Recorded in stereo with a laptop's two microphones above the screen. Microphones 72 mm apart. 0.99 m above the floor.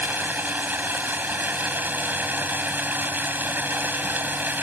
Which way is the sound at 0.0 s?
30° right (ahead or behind).